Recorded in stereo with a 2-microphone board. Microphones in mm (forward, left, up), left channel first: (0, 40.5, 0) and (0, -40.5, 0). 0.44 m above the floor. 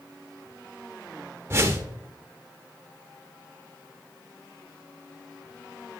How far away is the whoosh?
About 0.7 m.